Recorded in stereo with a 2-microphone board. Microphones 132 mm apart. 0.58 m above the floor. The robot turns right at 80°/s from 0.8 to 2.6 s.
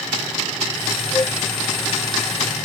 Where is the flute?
20° left (ahead or behind); by 1.4 s 40° left (ahead or behind).